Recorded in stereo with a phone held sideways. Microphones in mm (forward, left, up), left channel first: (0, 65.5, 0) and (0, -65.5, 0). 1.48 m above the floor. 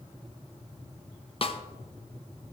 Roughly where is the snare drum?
Left.